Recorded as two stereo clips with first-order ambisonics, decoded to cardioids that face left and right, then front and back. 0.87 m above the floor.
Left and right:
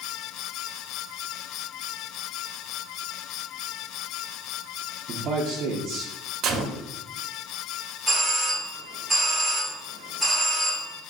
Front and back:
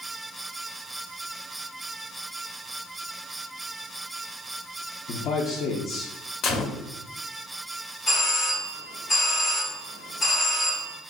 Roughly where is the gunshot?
Ahead right.